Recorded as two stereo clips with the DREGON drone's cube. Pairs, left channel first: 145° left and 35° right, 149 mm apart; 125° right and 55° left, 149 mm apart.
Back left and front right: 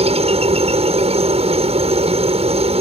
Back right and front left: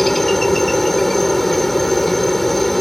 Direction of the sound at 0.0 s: 35° right.